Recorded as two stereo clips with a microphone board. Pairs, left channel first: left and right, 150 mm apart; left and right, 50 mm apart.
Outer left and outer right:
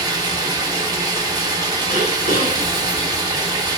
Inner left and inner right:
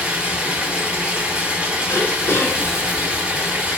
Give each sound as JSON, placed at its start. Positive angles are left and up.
{"t": 0.0, "sound": "running water", "side_deg": -25, "distance_m": 0.8}
{"t": 1.9, "sound": "throat clearing", "side_deg": 70, "distance_m": 0.9}